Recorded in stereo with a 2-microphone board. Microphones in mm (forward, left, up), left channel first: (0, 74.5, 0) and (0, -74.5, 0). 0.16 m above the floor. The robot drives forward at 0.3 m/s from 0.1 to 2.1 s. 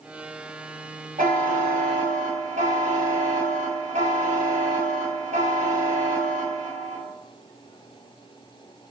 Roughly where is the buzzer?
Right.